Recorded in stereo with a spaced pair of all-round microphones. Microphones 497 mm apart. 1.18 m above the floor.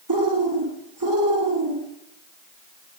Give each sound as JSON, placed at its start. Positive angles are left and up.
{"t": 0.1, "sound": "a bird", "side_deg": -40, "distance_m": 2.5}